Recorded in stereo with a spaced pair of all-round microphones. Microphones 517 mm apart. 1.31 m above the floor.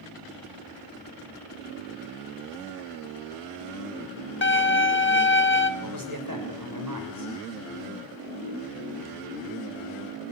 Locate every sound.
4.4 s a violin: 20° left (ahead or behind), 1.0 m
5.8 s a man speaking: 40° right (ahead or behind), 6.5 m